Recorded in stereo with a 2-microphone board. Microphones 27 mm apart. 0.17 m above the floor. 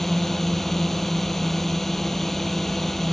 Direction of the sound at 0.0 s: 10° left (ahead or behind).